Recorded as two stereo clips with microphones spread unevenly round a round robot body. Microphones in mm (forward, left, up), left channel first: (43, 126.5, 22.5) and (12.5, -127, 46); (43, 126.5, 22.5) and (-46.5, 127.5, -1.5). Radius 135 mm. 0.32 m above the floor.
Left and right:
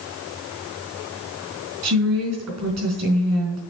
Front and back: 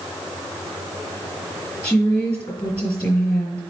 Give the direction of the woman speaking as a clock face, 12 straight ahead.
3 o'clock.